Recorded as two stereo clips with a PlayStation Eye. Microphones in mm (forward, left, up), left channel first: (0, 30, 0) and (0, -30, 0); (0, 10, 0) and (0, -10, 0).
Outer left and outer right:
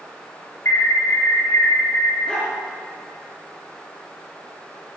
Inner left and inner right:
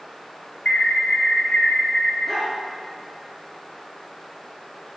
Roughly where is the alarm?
Left.